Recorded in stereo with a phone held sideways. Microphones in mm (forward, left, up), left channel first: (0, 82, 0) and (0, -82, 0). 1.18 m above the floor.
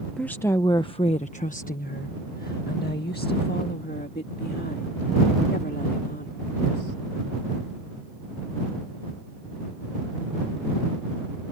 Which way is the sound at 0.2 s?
5° left (ahead or behind).